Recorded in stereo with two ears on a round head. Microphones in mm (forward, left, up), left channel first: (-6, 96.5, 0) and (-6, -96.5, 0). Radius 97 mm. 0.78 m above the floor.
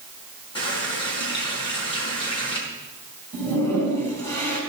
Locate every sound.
0.6 s a running tap: 25° left (ahead or behind), 5 m
3.3 s a toilet flushing: 15° left (ahead or behind), 5 m